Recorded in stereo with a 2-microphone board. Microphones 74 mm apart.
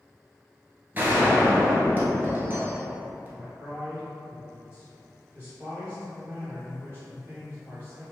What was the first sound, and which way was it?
A gunshot, 25° right (ahead or behind).